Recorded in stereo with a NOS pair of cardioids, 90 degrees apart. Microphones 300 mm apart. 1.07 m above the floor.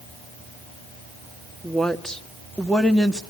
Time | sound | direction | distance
1.6 | a woman speaking | straight ahead | 1.8 m